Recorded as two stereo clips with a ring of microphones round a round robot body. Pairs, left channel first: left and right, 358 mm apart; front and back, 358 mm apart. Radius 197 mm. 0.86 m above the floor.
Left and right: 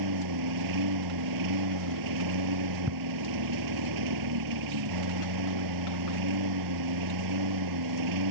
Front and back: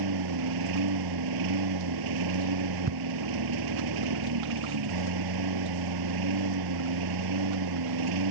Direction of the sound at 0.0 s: 135° right.